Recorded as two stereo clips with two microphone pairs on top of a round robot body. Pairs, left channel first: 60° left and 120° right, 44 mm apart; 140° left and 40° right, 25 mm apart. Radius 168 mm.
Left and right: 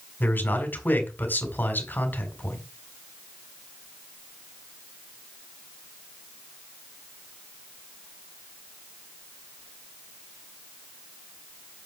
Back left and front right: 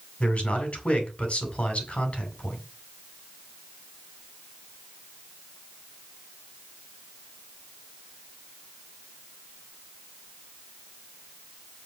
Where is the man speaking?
105° left, 4.5 m.